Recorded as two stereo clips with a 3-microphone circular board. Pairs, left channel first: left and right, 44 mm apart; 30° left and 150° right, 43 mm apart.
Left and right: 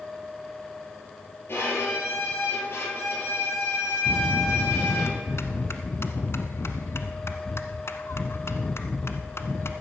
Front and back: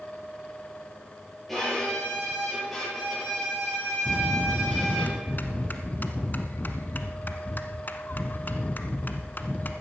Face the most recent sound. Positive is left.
turn(degrees=75)